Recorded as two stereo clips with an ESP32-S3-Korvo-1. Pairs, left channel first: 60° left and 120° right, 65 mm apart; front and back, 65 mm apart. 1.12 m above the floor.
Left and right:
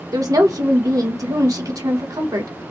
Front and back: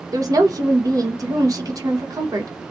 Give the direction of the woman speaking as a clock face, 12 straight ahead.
5 o'clock.